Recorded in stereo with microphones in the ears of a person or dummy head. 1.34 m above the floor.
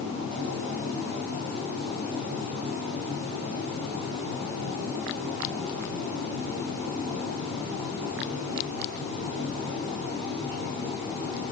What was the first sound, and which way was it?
Only background noise.